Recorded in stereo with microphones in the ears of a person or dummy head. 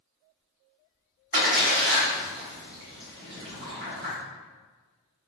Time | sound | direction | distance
1.3 | a splash | 50° right (ahead or behind) | 2.0 m